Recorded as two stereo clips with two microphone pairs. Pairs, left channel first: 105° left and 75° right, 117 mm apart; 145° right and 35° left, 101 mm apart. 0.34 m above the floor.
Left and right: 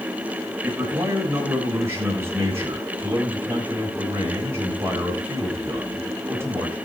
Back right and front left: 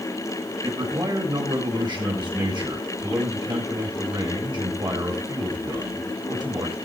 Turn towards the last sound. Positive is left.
turn(degrees=-5)